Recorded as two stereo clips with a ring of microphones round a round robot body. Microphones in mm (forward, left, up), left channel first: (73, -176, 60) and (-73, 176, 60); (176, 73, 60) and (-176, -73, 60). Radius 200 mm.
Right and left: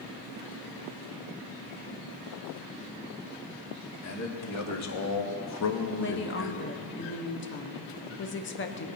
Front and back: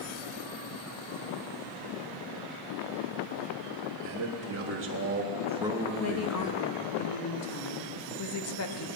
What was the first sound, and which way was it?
A man speaking, 115° right.